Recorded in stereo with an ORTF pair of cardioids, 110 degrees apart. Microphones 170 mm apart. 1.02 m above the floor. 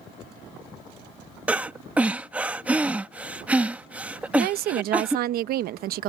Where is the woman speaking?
65° right.